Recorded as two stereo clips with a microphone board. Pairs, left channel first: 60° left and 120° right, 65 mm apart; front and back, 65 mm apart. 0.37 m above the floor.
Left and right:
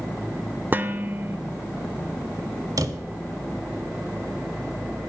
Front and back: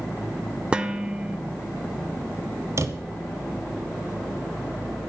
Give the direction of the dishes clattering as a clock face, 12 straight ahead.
4 o'clock.